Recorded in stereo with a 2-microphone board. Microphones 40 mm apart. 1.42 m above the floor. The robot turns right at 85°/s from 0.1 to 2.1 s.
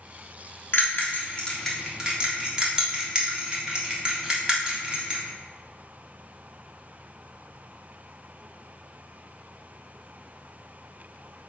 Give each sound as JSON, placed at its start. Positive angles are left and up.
{"t": 0.7, "sound": "a bell", "side_deg": 60, "distance_m": 1.5}